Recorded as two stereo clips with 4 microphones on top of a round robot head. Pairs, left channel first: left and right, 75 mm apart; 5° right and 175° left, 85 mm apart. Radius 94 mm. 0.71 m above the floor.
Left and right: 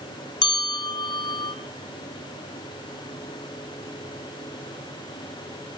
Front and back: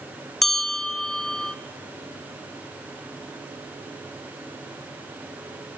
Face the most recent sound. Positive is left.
turn(degrees=80)